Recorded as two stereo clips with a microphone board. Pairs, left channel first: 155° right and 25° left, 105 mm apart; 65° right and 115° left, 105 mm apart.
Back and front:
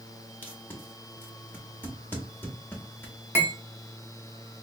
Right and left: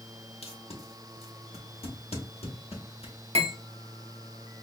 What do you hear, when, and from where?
0.4 s tape being pulled: 85° right, 1.0 m
3.4 s cutlery clinking: 90° left, 0.8 m